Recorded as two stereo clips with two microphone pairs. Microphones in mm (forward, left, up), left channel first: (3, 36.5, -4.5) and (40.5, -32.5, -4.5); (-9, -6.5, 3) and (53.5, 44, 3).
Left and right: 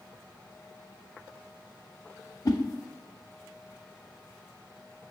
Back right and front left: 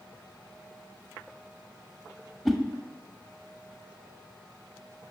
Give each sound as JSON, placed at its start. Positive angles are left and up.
{"t": 2.5, "sound": "a whoosh", "azimuth_deg": 130, "distance_m": 0.7}